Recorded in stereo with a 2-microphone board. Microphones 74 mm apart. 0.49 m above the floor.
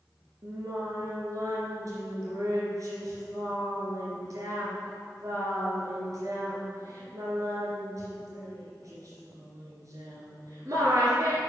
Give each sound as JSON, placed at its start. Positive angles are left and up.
{"t": 0.4, "sound": "singing", "side_deg": -55, "distance_m": 2.5}